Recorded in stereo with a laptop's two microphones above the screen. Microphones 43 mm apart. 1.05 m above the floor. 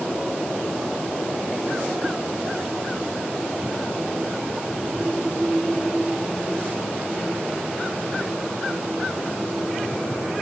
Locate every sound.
Only background noise.